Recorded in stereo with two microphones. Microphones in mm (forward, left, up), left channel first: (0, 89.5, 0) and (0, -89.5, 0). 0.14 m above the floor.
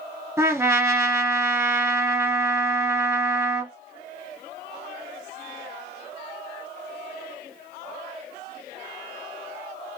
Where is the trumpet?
15° right (ahead or behind), 0.8 m.